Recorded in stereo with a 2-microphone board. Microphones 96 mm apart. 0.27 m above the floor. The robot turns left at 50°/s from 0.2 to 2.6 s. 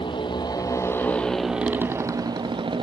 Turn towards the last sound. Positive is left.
turn(degrees=-60)